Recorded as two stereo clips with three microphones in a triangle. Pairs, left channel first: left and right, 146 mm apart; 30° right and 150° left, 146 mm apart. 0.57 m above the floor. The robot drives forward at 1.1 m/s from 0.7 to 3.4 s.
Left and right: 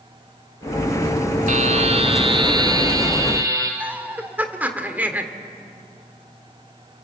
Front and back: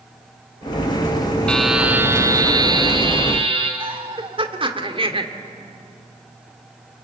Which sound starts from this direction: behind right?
A buzzer, at 1.5 s.